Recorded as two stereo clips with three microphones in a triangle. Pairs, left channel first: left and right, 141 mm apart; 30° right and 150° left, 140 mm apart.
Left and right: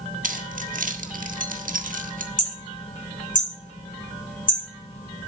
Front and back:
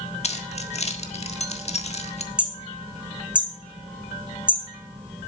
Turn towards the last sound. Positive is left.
turn(degrees=70)